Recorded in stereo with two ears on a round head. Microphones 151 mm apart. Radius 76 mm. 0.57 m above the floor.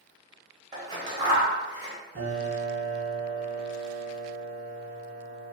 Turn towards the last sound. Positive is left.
turn(degrees=-50)  # may be behind; listen again after turning